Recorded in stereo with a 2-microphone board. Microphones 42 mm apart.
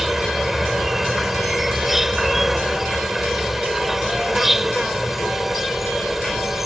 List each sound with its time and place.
0.0 s an insect: 5° right (ahead or behind)